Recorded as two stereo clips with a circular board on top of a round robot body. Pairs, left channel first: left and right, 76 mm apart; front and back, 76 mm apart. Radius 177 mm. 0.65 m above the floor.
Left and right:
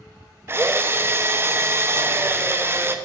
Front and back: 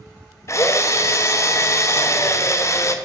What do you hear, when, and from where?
0.5 s a drill: 40° right, 1.0 m